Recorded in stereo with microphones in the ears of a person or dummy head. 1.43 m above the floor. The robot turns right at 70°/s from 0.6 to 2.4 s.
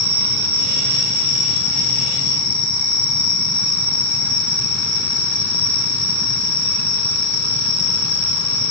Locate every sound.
0.0 s an insect: 30° right, 2 m; by 8.7 s 95° left, 2 m